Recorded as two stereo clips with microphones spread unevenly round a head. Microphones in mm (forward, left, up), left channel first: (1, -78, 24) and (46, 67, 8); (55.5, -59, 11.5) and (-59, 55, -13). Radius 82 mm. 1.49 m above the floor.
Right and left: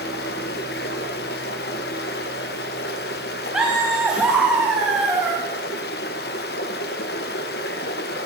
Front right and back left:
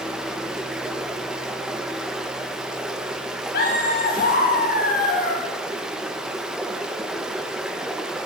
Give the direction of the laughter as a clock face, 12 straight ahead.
12 o'clock.